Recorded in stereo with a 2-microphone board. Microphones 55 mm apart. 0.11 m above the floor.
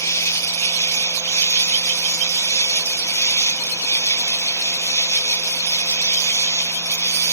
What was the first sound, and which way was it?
An insect, 60° left (ahead or behind).